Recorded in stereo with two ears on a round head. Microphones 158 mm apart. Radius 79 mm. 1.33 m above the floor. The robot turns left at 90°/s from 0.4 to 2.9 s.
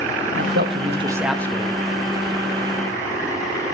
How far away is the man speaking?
About 1.9 m.